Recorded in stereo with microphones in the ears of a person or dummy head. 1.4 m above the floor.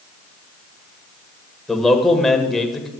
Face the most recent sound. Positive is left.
turn(degrees=5)  # may be behind; listen again after turning